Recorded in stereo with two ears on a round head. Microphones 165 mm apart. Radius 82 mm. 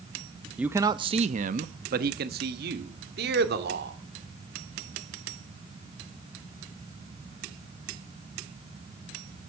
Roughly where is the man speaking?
Centre.